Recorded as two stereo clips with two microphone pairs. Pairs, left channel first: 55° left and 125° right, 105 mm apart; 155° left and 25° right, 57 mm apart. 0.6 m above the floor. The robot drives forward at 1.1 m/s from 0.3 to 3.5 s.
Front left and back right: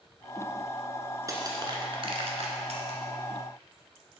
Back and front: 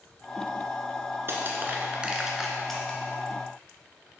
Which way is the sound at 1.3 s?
70° right.